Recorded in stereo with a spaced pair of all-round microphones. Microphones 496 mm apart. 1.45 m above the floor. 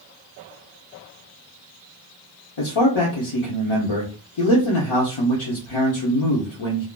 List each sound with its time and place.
2.6 s a man speaking: 70° left (ahead or behind), 0.7 m